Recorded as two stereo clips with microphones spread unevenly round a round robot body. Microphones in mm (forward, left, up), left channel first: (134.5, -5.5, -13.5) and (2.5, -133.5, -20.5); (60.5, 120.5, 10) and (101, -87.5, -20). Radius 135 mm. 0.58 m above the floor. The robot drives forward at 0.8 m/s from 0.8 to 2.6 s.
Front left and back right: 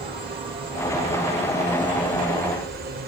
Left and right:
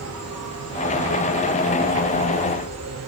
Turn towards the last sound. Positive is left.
turn(degrees=-100)